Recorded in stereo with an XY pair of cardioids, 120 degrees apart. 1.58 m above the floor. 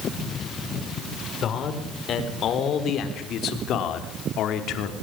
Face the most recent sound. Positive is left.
turn(degrees=75)